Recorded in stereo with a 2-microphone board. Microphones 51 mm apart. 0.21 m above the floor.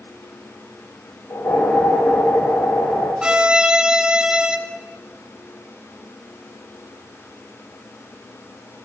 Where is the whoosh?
80° left, 8.5 m.